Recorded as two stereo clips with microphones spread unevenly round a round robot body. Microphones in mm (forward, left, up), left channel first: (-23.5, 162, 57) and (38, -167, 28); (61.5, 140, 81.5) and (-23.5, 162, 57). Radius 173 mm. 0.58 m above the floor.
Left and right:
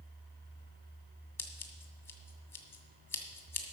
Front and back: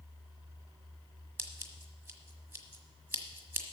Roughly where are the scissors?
Behind.